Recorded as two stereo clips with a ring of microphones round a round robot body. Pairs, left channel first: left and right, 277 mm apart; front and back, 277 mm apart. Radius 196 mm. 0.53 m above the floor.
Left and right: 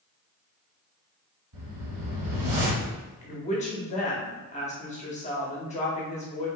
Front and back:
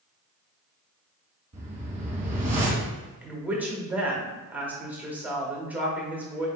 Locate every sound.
1.5 s a whoosh: 120° right, 1.1 m
3.2 s a woman speaking: 105° left, 1.1 m